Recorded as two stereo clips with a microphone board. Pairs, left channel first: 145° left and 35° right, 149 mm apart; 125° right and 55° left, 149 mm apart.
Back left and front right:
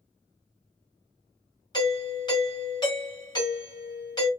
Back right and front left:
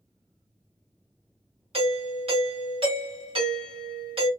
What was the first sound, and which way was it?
A doorbell, 90° left.